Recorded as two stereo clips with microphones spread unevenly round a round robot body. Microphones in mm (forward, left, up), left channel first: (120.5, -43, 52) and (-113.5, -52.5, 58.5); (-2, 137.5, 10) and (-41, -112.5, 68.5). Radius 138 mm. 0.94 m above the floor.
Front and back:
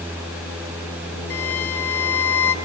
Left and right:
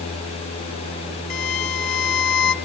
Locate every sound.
1.3 s a violin: 85° left, 1.5 m